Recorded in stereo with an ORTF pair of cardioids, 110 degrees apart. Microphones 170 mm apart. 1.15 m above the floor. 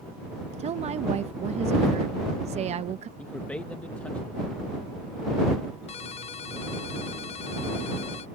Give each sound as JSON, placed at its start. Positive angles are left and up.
{"t": 0.6, "sound": "a woman speaking", "azimuth_deg": -40}
{"t": 3.2, "sound": "a man speaking", "azimuth_deg": 10}
{"t": 5.9, "sound": "a ringtone", "azimuth_deg": 40}